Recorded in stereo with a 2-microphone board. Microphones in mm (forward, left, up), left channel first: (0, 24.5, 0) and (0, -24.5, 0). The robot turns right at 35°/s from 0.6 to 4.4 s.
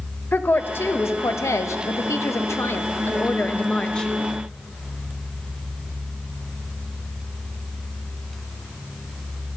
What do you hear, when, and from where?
0.3 s a woman speaking: 45° left, 0.7 m; by 4.1 s 165° left, 0.7 m